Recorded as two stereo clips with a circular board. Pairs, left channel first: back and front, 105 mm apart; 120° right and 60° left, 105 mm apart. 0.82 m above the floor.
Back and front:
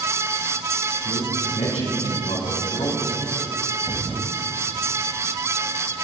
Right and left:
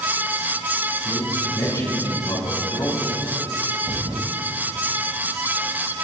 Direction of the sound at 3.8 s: 65° left.